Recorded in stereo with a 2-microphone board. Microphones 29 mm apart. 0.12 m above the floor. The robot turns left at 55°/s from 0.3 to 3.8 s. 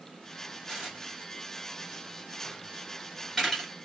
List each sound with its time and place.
0.7 s dishes clattering: 25° right (ahead or behind), 1.1 m; by 3.7 s 15° left (ahead or behind), 1.1 m